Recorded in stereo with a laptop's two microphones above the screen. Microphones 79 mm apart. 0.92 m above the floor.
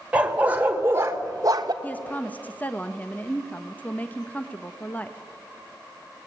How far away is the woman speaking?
About 0.9 m.